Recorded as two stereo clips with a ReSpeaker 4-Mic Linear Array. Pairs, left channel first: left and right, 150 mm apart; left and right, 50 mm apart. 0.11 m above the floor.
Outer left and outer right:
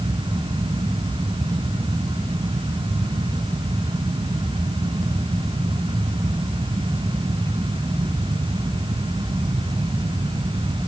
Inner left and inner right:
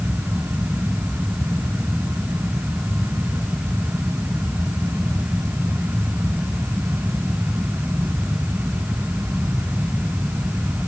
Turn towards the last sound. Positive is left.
No sound to turn to.